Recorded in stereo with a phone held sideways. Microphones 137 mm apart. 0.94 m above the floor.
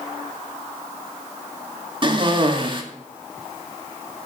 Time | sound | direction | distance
2.0 | a cough | 35° right (ahead or behind) | 2.0 m